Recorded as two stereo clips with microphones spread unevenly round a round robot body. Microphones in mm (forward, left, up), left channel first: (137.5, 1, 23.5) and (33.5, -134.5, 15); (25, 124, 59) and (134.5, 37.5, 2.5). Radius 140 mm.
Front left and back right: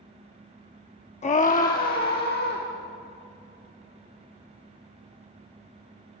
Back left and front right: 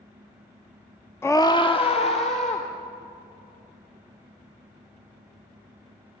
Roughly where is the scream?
Ahead left.